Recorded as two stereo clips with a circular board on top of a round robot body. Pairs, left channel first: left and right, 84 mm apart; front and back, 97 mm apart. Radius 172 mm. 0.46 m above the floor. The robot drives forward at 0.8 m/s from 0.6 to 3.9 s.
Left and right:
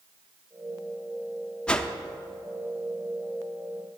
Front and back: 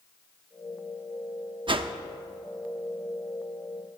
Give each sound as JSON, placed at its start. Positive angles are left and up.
{"t": 1.7, "sound": "a whoosh", "azimuth_deg": 165, "distance_m": 0.6}